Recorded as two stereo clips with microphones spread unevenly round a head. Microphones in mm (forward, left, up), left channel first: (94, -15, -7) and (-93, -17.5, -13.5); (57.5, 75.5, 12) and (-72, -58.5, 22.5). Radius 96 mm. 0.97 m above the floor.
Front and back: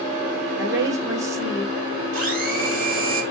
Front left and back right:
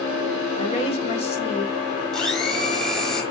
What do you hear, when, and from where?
0.6 s a woman speaking: 105° left, 2 m
2.1 s a blender: 135° left, 5.5 m